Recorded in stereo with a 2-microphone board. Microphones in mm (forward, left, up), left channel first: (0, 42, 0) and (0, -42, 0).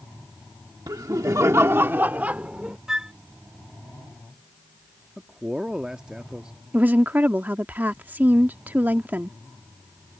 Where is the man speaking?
10° right (ahead or behind).